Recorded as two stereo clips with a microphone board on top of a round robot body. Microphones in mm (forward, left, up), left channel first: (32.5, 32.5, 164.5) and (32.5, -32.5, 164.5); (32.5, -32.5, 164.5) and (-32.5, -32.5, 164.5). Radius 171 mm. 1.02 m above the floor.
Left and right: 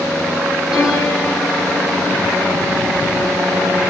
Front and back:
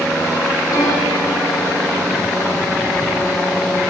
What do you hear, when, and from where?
0.7 s a piano: 5° right, 6.5 m